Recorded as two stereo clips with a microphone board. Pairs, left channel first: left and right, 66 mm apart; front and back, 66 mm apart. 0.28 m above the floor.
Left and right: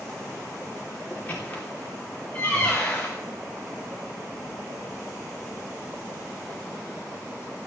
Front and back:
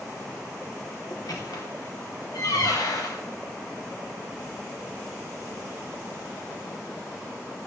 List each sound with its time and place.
1.1 s a squeak: 25° left, 3 m